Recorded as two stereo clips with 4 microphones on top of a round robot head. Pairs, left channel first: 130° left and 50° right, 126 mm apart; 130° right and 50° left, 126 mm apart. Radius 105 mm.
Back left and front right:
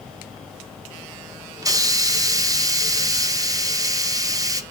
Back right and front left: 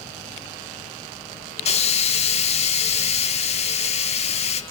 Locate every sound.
1.6 s a hiss: 110° right, 1.0 m